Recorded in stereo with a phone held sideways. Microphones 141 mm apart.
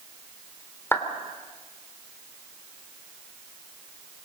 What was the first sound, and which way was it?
A clap, 15° left (ahead or behind).